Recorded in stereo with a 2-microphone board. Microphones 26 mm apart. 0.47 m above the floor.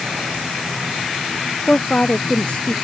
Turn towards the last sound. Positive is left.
turn(degrees=45)  # may be behind; listen again after turning